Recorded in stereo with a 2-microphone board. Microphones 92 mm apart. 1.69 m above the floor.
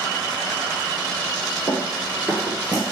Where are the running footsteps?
25° right (ahead or behind), 2.0 m; by 2.8 s 25° left (ahead or behind), 2 m.